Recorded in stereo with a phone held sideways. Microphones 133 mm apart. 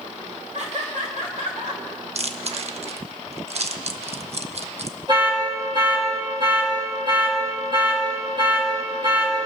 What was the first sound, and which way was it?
Laughter, 60° right (ahead or behind).